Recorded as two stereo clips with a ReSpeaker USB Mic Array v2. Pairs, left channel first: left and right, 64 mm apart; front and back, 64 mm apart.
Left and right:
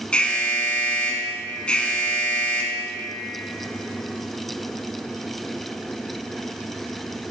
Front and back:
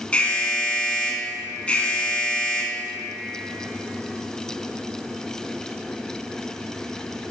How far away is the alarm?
About 0.8 m.